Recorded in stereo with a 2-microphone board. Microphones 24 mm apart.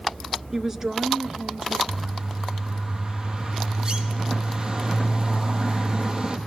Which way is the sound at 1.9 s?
30° right (ahead or behind).